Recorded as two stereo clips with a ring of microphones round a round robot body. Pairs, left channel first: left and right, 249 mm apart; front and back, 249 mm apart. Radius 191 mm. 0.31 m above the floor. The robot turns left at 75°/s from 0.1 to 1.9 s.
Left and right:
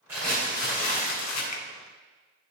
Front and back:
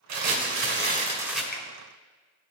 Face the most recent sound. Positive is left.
turn(degrees=10)